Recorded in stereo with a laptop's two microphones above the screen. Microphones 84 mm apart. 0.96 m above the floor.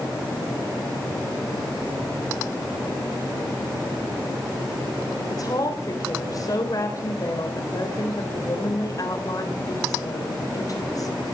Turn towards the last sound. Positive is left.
turn(degrees=45)  # may be behind; listen again after turning